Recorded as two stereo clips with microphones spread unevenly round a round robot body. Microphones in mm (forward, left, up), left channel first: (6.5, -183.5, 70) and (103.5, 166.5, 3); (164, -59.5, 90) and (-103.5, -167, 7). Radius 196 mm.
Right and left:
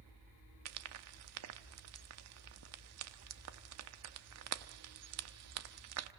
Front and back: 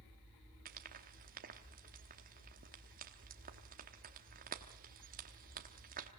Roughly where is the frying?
Behind left.